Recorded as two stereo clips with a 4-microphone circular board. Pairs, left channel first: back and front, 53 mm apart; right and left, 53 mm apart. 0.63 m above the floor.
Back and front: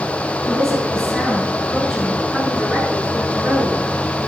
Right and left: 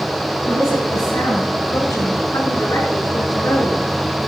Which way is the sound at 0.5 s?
100° right.